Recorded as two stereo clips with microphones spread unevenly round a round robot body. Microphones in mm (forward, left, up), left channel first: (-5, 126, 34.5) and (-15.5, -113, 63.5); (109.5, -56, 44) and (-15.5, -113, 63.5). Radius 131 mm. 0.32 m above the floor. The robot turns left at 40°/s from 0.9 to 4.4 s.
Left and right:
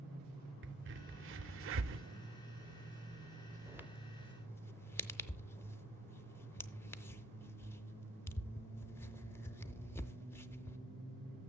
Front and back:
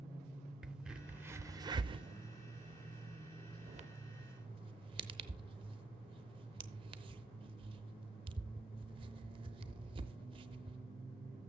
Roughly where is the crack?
Ahead right.